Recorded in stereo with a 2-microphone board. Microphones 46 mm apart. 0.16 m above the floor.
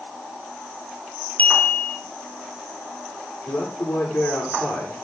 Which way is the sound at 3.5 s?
65° left (ahead or behind).